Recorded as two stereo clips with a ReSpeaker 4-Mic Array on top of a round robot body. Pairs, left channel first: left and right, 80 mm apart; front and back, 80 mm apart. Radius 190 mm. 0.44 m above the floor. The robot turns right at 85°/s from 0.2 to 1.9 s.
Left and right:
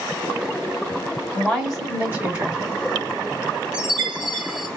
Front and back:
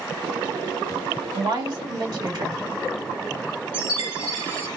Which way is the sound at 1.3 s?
155° left.